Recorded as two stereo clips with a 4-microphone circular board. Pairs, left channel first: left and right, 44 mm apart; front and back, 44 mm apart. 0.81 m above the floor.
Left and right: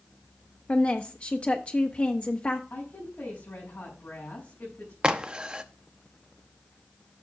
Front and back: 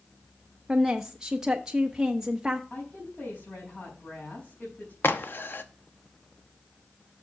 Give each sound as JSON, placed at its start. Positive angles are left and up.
{"t": 0.7, "sound": "a woman speaking", "azimuth_deg": 115, "distance_m": 0.7}
{"t": 2.7, "sound": "a woman speaking", "azimuth_deg": 55, "distance_m": 4.5}
{"t": 5.0, "sound": "a crack", "azimuth_deg": -20, "distance_m": 0.8}